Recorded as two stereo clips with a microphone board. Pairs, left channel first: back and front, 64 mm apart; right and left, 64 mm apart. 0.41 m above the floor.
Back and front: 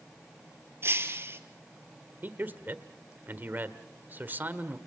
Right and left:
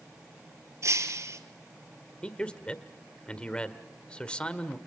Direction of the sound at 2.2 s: 30° right.